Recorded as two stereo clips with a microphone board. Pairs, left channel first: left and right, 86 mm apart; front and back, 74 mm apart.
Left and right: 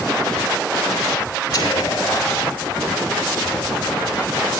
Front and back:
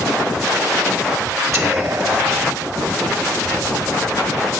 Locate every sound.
1.5 s whispering: 130° left, 3.5 m